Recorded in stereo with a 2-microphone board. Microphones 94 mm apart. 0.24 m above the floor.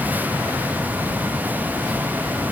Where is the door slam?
I don't hear a door slam.